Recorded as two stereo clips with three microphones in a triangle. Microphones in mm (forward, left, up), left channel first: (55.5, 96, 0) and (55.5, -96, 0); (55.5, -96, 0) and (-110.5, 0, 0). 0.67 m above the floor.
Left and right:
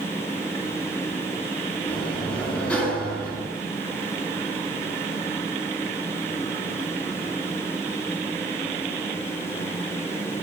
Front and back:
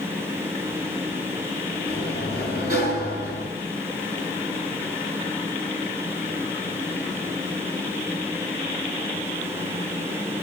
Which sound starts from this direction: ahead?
A sliding door, at 1.9 s.